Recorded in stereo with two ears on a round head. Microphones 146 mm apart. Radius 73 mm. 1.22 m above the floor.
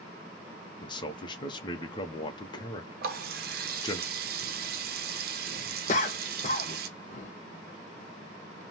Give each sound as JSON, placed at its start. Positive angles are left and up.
{"t": 0.8, "sound": "a man speaking", "side_deg": 30, "distance_m": 0.6}
{"t": 3.0, "sound": "a running tap", "side_deg": -60, "distance_m": 0.6}
{"t": 5.9, "sound": "a cough", "side_deg": 45, "distance_m": 0.7}